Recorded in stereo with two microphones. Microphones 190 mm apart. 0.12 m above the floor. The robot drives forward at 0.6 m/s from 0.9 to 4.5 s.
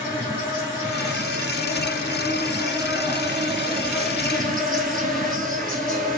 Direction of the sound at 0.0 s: 10° right (ahead or behind).